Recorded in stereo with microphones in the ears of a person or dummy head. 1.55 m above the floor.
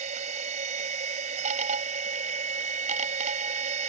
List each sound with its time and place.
0.0 s a machine running: 45° right (ahead or behind)